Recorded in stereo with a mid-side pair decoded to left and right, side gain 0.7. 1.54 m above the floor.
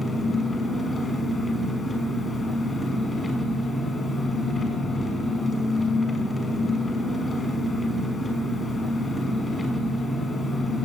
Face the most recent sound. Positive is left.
turn(degrees=15)